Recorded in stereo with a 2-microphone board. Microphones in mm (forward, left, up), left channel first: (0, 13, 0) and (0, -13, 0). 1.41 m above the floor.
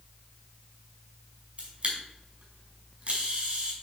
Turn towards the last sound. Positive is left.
turn(degrees=-40)  # may be behind; listen again after turning